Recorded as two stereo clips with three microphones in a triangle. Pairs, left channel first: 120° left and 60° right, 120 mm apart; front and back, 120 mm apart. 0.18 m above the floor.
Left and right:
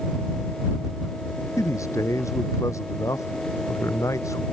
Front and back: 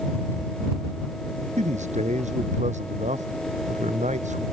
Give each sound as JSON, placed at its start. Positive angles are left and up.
{"t": 1.6, "sound": "a man speaking", "azimuth_deg": -175}